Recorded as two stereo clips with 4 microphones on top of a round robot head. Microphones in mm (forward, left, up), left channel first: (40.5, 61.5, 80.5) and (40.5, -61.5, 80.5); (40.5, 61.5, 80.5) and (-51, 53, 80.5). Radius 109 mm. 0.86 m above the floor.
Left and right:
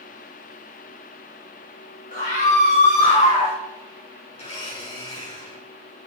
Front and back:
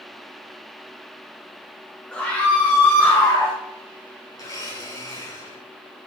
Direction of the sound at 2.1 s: 80° left.